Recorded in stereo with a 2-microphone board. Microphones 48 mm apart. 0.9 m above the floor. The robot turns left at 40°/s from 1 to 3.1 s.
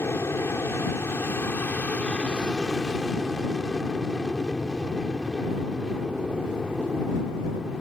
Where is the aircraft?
80° left; by 7.8 s 5° right.